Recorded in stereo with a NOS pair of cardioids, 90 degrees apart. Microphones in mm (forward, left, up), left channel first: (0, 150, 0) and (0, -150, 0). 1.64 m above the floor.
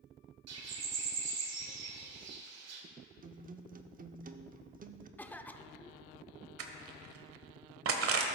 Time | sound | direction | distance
0.5 | a bird | 65° right | 1.6 m
3.2 | a guitar | 30° right | 0.7 m
5.2 | a cough | 5° left | 0.6 m
6.6 | crushing | 50° right | 1.2 m